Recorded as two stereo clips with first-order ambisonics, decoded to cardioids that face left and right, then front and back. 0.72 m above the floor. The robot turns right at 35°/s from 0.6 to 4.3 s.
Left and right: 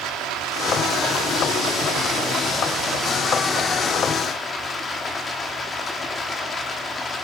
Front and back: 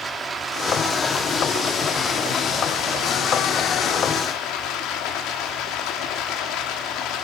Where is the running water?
110° right, 1.3 m; by 7.2 s 20° left, 1.3 m.